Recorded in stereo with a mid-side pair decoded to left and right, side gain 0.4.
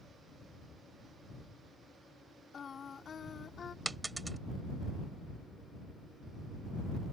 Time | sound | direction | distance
2.5 | singing | 50° left | ?
3.9 | a dropped coin | 15° right | ?